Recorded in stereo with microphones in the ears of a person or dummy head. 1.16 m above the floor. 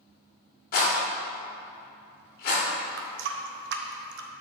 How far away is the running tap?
About 0.7 m.